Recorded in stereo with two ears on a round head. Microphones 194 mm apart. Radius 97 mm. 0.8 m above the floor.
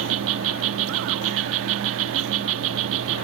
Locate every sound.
0.0 s an insect: 70° right (ahead or behind)